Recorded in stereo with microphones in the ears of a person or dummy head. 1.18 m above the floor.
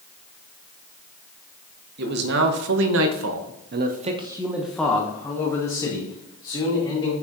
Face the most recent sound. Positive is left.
turn(degrees=30)  # may be behind; listen again after turning